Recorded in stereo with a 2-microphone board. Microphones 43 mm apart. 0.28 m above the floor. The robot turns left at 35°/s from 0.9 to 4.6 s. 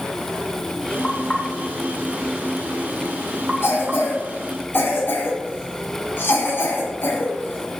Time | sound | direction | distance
1.0 | knocking | 25° left (ahead or behind) | 1.5 m
3.6 | a cough | 60° left (ahead or behind) | 2.0 m